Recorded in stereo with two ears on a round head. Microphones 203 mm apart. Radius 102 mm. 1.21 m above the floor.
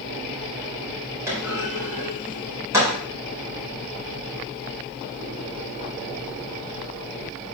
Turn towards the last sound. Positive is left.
turn(degrees=-15)  # may be behind; listen again after turning